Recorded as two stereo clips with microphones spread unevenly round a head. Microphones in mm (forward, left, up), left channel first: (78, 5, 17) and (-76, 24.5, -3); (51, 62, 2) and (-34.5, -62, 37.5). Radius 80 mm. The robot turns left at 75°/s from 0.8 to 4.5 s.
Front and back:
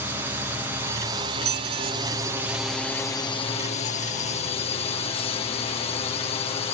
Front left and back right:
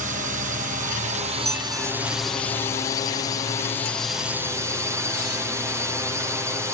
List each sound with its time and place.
0.0 s a drone: 125° right; by 6.8 s 45° right
1.4 s a squeak: straight behind; by 5.5 s 50° right